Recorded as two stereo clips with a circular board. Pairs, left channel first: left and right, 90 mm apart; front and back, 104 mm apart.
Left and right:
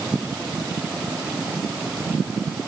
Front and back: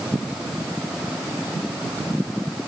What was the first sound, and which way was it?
Only background noise.